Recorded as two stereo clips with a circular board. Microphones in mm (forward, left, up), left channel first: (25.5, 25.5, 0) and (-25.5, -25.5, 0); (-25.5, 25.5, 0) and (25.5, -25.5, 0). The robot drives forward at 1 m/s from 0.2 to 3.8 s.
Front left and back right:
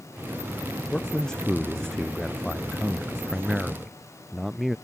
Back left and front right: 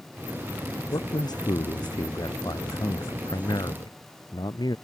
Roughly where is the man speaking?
Behind left.